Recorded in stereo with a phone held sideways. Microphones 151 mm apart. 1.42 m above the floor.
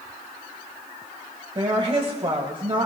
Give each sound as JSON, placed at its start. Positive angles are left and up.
{"t": 1.6, "sound": "a woman speaking", "side_deg": -35, "distance_m": 1.5}